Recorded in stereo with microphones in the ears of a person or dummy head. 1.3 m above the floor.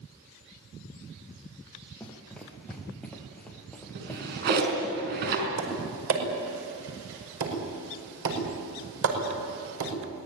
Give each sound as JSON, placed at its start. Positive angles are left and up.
{"t": 2.0, "sound": "running footsteps", "side_deg": 5, "distance_m": 3.5}
{"t": 4.0, "sound": "a drawer", "side_deg": -60, "distance_m": 5.0}
{"t": 5.6, "sound": "tapping", "side_deg": -80, "distance_m": 5.5}